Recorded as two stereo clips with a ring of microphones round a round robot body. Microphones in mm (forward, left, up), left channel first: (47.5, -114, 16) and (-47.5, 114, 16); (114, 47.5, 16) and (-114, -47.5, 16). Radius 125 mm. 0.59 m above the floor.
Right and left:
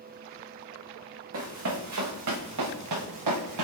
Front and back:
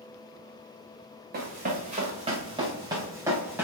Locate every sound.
1.3 s running footsteps: 150° left, 2.5 m; by 3.6 s 120° left, 3 m